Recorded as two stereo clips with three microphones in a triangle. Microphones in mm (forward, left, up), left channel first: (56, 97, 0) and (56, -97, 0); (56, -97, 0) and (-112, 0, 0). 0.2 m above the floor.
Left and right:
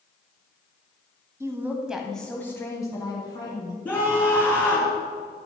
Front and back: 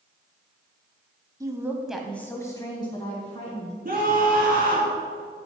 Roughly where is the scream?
Behind.